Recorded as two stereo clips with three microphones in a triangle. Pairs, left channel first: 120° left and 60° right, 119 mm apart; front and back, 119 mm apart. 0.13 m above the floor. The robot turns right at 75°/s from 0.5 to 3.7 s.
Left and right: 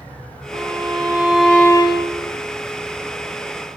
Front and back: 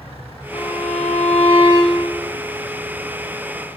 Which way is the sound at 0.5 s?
35° right.